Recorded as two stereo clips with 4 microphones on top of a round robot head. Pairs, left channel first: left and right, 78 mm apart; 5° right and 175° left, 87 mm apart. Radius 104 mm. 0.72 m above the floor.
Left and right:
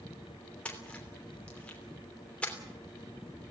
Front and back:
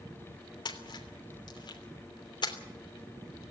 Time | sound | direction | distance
0.7 | a splash | 15° left | 3 m